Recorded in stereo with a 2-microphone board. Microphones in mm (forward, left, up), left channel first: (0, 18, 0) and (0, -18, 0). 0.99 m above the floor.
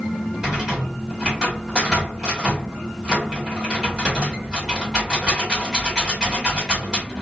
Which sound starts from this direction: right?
A rattle, at 0.4 s.